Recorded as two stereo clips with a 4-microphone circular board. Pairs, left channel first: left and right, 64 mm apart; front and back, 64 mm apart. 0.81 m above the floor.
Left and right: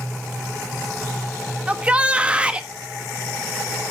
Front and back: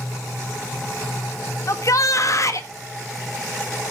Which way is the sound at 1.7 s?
20° right.